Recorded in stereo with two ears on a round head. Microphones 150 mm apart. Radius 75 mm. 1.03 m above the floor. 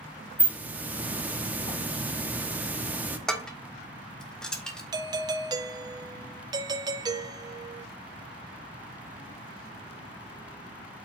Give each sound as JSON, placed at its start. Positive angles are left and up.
{"t": 0.4, "sound": "a hiss", "side_deg": -10, "distance_m": 1.0}
{"t": 3.3, "sound": "dishes clattering", "side_deg": 5, "distance_m": 1.2}
{"t": 4.9, "sound": "a doorbell", "side_deg": -25, "distance_m": 0.6}